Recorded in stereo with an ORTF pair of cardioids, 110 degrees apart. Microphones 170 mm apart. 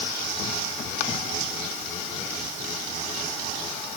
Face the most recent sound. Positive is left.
No sound to turn to.